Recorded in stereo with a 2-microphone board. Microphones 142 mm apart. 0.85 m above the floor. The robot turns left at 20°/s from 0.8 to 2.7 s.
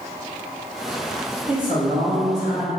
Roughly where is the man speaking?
Right.